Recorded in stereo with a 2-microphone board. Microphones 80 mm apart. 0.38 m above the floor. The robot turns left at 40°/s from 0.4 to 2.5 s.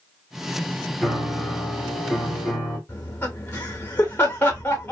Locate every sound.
1.0 s a piano: 10° right (ahead or behind), 1.0 m; by 2.8 s 15° left (ahead or behind), 1.0 m
2.9 s laughter: 25° left (ahead or behind), 0.9 m